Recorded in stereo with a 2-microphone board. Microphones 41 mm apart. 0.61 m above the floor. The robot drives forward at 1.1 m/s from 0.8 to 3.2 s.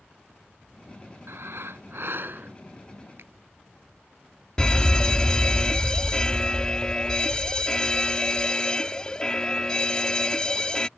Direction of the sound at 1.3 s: 70° right (ahead or behind).